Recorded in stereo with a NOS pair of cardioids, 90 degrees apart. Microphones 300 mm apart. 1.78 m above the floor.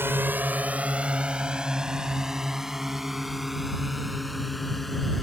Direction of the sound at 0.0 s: 5° right.